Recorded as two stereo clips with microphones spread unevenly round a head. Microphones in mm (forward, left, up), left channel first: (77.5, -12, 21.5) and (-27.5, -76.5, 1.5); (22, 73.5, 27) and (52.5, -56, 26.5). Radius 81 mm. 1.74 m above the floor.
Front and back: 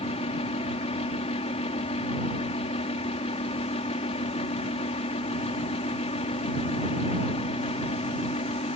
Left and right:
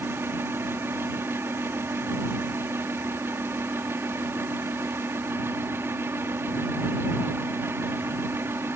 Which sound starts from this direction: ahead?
A fan, at 0.0 s.